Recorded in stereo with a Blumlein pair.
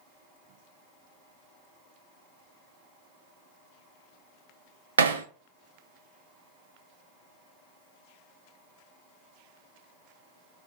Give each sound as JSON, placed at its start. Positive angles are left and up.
{"t": 5.0, "sound": "hammering", "azimuth_deg": -70, "distance_m": 0.6}